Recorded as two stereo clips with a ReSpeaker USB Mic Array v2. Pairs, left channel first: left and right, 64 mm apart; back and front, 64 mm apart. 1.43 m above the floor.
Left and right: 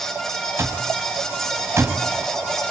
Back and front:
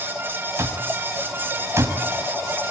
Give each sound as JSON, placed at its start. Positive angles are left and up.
{"t": 0.6, "sound": "an alarm clock", "azimuth_deg": -40, "distance_m": 5.0}